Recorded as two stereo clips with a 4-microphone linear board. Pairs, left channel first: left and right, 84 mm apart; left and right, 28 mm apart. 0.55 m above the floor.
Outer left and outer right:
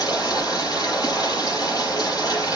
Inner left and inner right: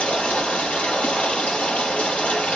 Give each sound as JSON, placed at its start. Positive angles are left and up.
{"t": 0.0, "sound": "running water", "side_deg": 55, "distance_m": 6.0}